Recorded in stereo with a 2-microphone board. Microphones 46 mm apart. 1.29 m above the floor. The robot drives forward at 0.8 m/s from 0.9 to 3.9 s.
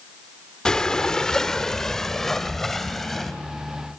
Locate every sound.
0.7 s breathing: 15° left (ahead or behind), 0.9 m; by 3.4 s 5° left (ahead or behind), 2.5 m